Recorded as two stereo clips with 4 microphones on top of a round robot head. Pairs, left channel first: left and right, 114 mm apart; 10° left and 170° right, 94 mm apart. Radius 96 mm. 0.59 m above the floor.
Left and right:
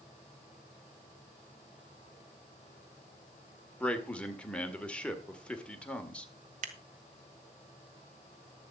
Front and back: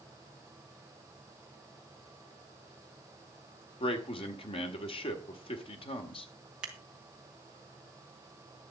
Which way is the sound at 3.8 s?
10° left.